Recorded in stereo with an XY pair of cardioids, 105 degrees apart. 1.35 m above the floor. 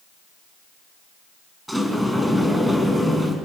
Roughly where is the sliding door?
Ahead.